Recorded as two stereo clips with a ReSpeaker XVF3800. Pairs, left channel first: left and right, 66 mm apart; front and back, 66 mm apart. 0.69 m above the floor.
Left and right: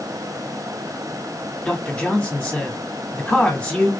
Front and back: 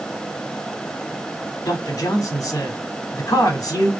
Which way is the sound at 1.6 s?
10° left.